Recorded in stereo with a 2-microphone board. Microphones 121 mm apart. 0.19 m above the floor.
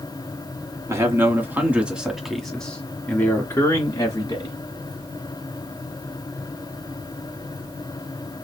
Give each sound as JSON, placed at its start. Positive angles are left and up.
{"t": 0.9, "sound": "a man speaking", "side_deg": -25, "distance_m": 1.8}